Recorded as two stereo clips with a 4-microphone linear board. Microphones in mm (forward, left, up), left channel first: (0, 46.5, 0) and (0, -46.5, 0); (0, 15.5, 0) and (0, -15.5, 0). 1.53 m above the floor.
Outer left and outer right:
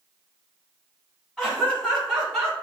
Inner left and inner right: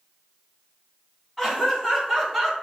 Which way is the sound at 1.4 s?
5° right (ahead or behind).